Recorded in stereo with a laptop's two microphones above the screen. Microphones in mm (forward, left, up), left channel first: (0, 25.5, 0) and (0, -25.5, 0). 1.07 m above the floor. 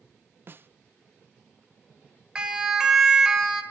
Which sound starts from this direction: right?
A snare drum, at 0.5 s.